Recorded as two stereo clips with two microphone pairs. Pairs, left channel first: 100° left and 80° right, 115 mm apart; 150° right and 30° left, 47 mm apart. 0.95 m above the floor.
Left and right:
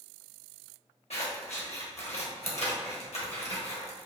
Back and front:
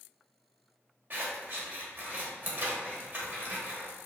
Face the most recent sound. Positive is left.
turn(degrees=75)